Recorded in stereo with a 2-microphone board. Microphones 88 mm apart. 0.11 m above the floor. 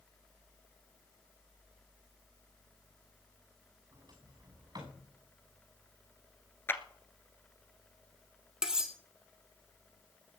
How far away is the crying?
No crying in this recording.